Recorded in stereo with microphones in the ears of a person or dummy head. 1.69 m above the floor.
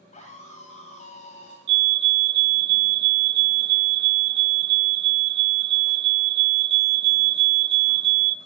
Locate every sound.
0.1 s a scream: 40° left (ahead or behind), 1.7 m
1.7 s a fire alarm: 40° right (ahead or behind), 0.9 m